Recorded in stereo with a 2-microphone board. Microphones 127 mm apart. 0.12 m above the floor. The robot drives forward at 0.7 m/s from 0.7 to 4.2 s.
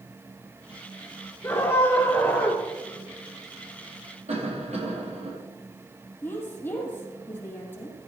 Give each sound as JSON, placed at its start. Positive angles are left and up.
{"t": 1.4, "sound": "a scream", "side_deg": 20, "distance_m": 2.5}
{"t": 4.3, "sound": "a cough", "side_deg": -70, "distance_m": 4.5}
{"t": 6.2, "sound": "a woman speaking", "side_deg": 20, "distance_m": 5.0}